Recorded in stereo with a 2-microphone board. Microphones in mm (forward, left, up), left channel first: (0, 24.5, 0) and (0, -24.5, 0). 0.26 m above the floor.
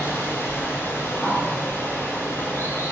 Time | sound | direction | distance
0.0 | running water | 55° left (ahead or behind) | 0.7 m
1.2 | a bird | 10° left (ahead or behind) | 0.8 m